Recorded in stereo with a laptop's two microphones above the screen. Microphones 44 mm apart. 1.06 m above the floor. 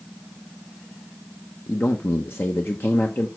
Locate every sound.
1.7 s a man speaking: 55° left (ahead or behind), 1.0 m